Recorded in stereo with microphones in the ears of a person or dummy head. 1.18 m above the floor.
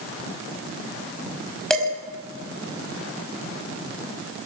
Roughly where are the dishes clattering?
Centre.